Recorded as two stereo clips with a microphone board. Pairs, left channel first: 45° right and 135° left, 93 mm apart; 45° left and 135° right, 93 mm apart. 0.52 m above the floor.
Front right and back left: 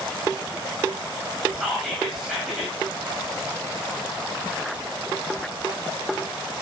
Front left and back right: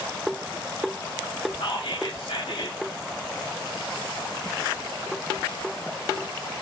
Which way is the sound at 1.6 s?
45° left.